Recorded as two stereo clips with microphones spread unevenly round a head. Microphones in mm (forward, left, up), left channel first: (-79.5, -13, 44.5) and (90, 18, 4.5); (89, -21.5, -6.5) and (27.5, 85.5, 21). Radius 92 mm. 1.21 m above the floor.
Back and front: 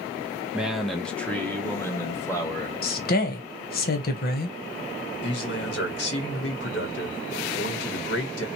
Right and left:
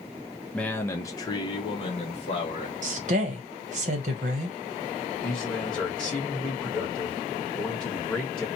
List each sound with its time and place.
0.5 s a man speaking: 25° right, 0.6 m; by 2.7 s 90° right, 1.4 m
2.8 s a woman speaking: 155° left, 0.8 m
5.2 s a man speaking: 145° right, 1.1 m